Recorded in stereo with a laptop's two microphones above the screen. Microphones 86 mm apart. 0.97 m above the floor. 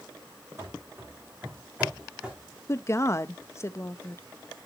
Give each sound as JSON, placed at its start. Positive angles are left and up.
{"t": 0.6, "sound": "running footsteps", "side_deg": -35, "distance_m": 2.5}
{"t": 2.7, "sound": "a woman speaking", "side_deg": 35, "distance_m": 0.7}